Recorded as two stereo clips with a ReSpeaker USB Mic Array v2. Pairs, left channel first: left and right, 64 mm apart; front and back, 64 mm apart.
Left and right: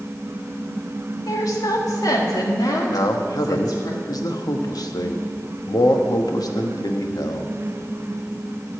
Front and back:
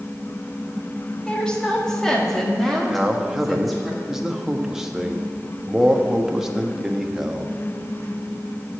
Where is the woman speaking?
70° left, 1.6 m; by 3.9 s 90° left, 2.5 m.